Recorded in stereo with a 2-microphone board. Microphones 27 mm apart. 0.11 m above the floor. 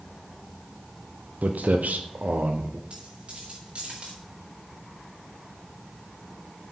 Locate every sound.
1.4 s footsteps: 85° right, 1.7 m; by 2.8 s 60° right (ahead or behind), 2 m
2.9 s a dropped coin: 45° right (ahead or behind), 5.5 m